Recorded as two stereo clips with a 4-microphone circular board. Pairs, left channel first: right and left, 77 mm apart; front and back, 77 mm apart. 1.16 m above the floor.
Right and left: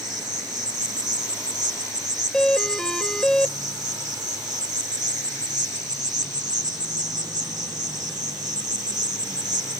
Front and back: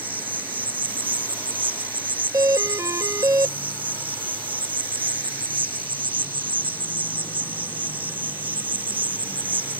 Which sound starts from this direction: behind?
A doorbell, at 2.3 s.